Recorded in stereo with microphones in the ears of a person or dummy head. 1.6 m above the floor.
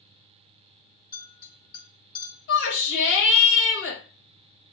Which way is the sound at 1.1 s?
30° left (ahead or behind).